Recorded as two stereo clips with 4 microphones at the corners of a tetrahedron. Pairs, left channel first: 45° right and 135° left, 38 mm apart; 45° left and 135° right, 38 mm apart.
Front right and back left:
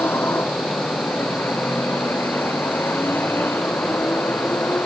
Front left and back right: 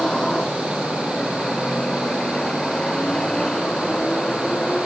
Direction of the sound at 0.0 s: 25° right.